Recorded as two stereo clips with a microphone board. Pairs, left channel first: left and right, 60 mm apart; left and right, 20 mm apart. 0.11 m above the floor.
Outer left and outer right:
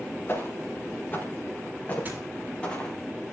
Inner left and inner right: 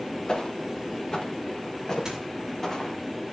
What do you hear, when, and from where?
0.3 s footsteps: 40° left (ahead or behind), 4.5 m; by 3.0 s 20° left (ahead or behind), 4 m
2.0 s a squeak: 25° right (ahead or behind), 5.5 m